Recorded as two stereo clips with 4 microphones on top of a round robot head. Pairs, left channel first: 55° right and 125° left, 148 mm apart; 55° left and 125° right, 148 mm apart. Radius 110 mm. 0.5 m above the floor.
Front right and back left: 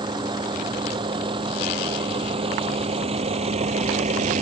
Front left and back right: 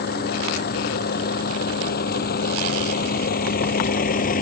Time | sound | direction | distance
0.0 | a vehicle | 65° left | ?